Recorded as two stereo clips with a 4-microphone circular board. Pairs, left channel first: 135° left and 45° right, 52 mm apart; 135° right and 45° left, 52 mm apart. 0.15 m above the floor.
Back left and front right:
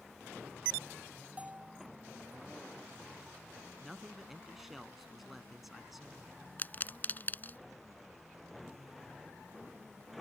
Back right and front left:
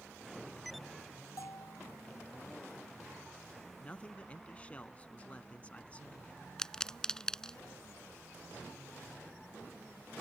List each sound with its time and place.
1.4 s a bell: 110° right
3.8 s a man speaking: 130° right
6.6 s a pop: 155° left